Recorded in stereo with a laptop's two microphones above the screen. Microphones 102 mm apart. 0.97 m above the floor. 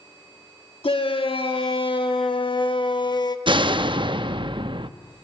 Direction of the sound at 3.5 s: 55° right (ahead or behind).